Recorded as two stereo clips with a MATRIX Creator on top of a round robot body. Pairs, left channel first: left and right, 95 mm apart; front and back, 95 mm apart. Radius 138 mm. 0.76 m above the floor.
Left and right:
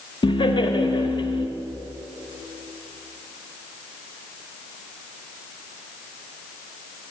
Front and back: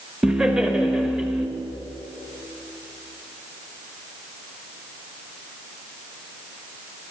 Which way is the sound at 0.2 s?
100° left.